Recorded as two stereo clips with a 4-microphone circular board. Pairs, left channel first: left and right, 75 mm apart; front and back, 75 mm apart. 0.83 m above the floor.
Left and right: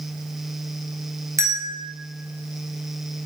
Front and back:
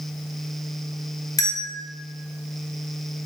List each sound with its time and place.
1.4 s a bell: 40° right, 0.7 m